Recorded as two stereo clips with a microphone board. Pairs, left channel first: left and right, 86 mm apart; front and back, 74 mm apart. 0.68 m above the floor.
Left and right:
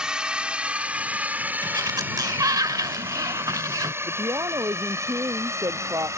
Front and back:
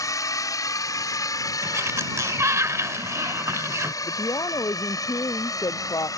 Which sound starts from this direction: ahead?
A drone, at 0.0 s.